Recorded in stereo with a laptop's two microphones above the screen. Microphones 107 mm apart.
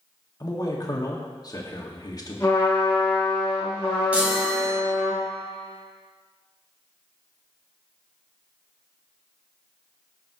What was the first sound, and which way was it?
A man speaking, 40° left (ahead or behind).